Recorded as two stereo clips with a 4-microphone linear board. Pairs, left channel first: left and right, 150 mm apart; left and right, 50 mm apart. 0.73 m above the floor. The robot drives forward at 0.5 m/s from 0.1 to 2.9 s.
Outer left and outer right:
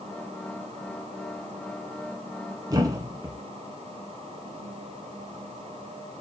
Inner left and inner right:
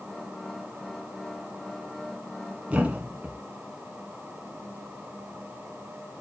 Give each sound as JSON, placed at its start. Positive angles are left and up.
{"t": 2.7, "sound": "a thud", "side_deg": -25, "distance_m": 1.7}